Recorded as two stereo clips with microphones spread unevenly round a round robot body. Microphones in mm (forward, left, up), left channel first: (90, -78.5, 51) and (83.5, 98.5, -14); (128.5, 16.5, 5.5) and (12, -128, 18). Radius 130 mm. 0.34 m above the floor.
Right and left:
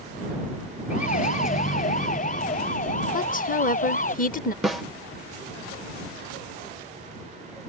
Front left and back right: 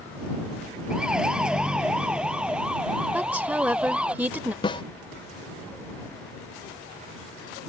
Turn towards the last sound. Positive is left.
turn(degrees=45)